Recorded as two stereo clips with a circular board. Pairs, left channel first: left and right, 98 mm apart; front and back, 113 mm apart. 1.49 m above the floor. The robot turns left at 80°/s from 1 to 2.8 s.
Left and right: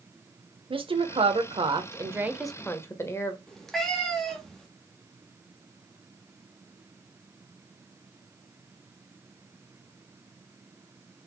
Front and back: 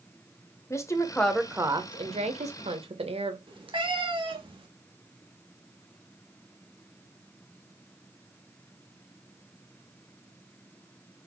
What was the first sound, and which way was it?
A woman speaking, 65° right.